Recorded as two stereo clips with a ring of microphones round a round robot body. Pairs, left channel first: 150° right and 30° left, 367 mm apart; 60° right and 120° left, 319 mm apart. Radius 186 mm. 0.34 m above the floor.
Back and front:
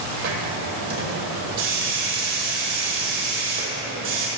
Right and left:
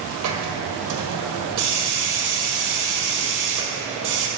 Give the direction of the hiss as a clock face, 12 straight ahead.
9 o'clock.